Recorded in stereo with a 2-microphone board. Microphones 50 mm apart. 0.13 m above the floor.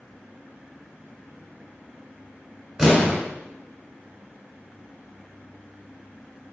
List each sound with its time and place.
2.8 s an explosion: 5° right (ahead or behind), 1.2 m